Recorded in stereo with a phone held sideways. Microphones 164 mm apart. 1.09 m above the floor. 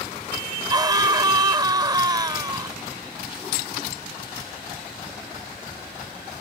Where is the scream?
25° right (ahead or behind).